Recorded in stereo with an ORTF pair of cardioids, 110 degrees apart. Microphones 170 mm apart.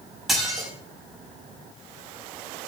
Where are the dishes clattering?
Straight ahead, 6 m.